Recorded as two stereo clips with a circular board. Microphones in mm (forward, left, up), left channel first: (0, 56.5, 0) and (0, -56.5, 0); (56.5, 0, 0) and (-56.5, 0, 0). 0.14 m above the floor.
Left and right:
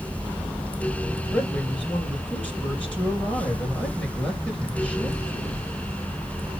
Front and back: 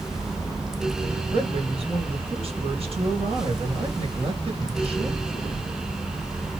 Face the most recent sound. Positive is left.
turn(degrees=165)